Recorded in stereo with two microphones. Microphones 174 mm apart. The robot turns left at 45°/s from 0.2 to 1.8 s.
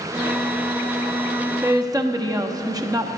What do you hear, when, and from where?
1.6 s a woman speaking: 20° right (ahead or behind), 0.7 m